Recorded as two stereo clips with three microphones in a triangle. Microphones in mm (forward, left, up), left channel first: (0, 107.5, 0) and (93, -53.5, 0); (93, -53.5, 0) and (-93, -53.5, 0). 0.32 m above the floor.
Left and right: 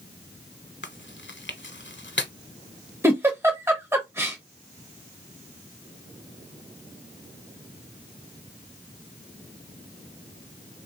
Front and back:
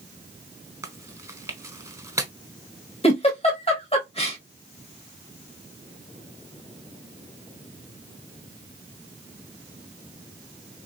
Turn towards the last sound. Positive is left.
turn(degrees=5)